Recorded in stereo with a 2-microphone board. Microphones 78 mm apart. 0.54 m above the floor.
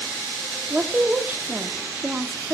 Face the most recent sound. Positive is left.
turn(degrees=-25)  # may be behind; listen again after turning